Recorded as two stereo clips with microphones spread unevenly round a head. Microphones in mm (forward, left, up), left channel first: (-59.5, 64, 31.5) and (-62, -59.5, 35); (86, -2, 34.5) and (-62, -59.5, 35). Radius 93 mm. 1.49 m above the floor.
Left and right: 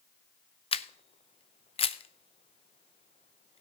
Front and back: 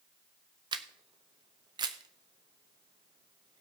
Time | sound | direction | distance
0.7 | a camera shutter | 135° left | 0.8 m